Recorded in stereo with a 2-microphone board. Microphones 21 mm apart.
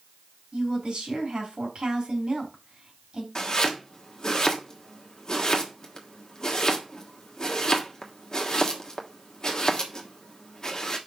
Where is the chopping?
35° left (ahead or behind), 1.4 m.